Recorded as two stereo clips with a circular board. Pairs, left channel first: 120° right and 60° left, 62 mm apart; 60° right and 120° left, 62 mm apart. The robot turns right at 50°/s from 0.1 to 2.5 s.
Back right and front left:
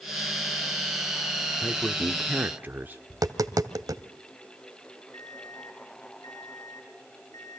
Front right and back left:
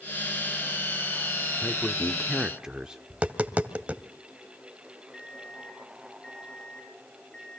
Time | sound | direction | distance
1.6 | a man speaking | 10° left | 1.1 m
3.1 | tapping | 55° left | 1.4 m
5.1 | an alarm clock | 135° right | 5.5 m